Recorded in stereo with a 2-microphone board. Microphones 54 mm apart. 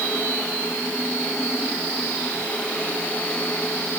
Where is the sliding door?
I don't hear a sliding door.